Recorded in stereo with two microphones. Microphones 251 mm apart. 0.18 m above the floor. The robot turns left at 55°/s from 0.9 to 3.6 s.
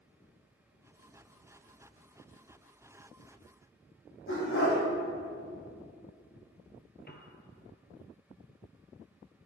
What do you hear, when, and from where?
4.3 s a dog barking: 55° left (ahead or behind), 3.5 m
7.1 s a piano: 40° left (ahead or behind), 1.0 m